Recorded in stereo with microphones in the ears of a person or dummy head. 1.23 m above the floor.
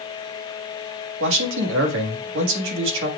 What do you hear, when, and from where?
1.2 s a man speaking: 65° right (ahead or behind), 1.8 m